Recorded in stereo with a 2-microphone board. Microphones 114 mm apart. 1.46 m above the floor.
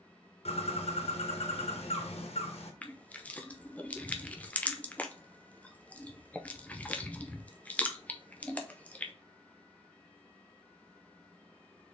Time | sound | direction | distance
0.5 | a bird | 60° left (ahead or behind) | 1.0 m
2.8 | crushing | 10° left (ahead or behind) | 0.5 m